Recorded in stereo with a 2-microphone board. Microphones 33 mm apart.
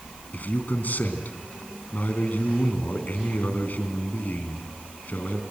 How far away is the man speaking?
About 3 m.